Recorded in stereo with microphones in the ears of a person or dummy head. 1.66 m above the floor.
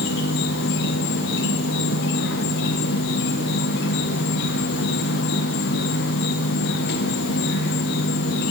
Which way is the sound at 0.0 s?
60° left (ahead or behind).